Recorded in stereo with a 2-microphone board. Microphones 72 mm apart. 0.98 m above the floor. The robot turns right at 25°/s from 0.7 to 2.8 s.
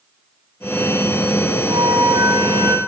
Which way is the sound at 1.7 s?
65° right (ahead or behind).